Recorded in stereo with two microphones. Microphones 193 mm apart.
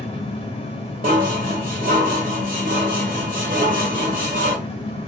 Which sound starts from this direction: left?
An engine running, at 0.0 s.